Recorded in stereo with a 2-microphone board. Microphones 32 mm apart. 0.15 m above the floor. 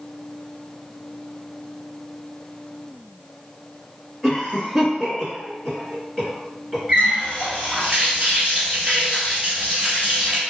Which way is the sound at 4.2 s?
5° right (ahead or behind).